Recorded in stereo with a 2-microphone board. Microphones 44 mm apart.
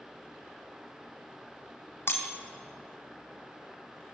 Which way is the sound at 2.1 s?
60° left (ahead or behind).